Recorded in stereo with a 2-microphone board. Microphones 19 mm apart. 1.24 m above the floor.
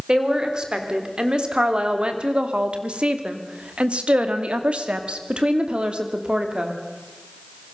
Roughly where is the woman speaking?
Right.